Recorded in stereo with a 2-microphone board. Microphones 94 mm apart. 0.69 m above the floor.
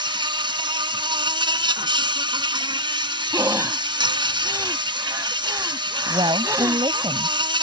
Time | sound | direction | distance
0.0 | an insect | 60° right (ahead or behind) | ?
3.3 | breathing | 30° right (ahead or behind) | ?
6.1 | a woman speaking | 60° right (ahead or behind) | ?